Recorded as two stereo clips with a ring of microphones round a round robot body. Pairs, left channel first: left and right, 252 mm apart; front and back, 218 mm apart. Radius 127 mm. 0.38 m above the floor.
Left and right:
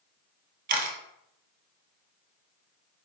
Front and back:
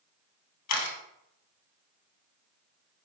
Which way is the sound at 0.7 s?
30° right.